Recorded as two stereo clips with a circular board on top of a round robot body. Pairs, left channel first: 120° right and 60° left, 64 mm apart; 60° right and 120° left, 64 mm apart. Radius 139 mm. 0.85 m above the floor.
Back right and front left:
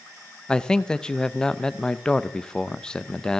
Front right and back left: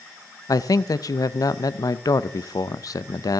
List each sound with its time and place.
0.5 s a man speaking: 45° right, 0.6 m